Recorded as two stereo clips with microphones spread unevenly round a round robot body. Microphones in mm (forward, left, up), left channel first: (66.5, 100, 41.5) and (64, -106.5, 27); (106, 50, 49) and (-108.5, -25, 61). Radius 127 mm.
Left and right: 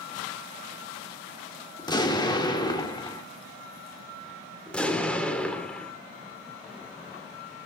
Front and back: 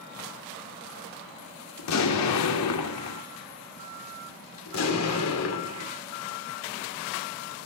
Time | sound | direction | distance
1.8 | an explosion | 20° left | 1.8 m
4.7 | an explosion | 5° left | 2 m